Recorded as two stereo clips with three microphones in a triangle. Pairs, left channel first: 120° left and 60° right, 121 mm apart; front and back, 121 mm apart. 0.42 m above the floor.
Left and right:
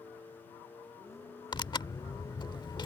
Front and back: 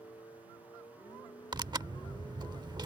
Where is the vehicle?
55° left; by 2.9 s 50° left.